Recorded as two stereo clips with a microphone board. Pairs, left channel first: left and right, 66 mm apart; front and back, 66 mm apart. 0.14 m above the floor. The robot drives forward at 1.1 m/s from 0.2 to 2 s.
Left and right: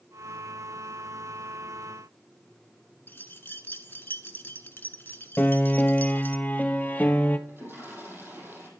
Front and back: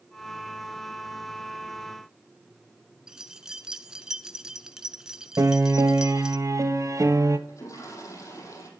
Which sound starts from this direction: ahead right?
A toilet flushing, at 7.5 s.